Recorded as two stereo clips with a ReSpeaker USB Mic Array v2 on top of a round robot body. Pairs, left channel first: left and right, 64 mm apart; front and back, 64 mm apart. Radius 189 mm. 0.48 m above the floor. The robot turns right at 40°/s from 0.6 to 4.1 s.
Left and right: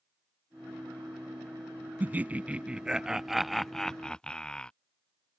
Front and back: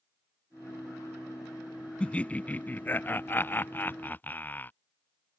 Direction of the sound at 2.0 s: 60° right.